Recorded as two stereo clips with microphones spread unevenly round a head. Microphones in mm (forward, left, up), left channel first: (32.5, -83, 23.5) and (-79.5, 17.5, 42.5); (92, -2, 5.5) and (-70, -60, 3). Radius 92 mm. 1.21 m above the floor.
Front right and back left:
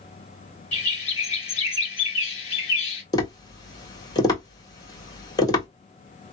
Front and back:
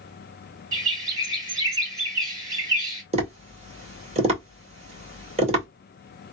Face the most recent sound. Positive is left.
turn(degrees=-105)